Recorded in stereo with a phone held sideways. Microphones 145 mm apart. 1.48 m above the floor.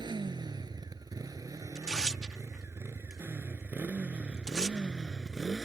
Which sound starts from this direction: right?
A motorcycle, at 0.0 s.